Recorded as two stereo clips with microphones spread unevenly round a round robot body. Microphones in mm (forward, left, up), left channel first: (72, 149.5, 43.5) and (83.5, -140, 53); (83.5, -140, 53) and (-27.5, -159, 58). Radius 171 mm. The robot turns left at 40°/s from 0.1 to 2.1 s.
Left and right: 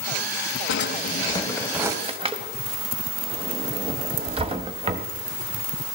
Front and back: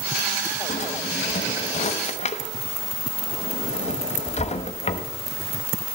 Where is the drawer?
40° left, 1.0 m; by 5.1 s 15° right, 1.0 m.